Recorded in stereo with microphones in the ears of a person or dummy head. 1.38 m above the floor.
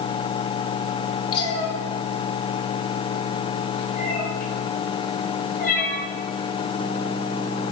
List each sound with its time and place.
1.3 s a cat meowing: 25° left (ahead or behind), 1.7 m; by 6.0 s 50° left (ahead or behind), 6 m